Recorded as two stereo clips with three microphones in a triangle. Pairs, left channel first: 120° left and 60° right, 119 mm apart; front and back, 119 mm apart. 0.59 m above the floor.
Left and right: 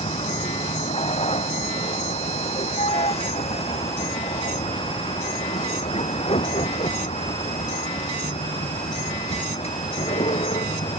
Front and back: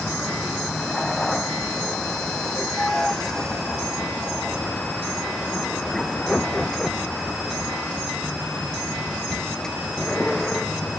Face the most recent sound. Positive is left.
turn(degrees=85)